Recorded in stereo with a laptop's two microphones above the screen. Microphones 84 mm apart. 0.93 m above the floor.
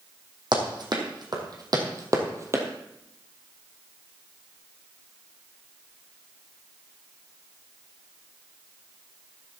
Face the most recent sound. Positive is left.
turn(degrees=-35)  # may be behind; listen again after turning